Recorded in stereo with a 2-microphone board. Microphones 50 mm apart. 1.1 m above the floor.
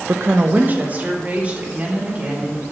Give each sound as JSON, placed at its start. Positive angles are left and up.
{"t": 0.1, "sound": "a woman speaking", "side_deg": -50, "distance_m": 0.5}